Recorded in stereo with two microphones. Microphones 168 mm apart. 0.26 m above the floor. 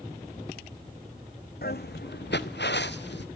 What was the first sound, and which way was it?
Footsteps, 65° left (ahead or behind).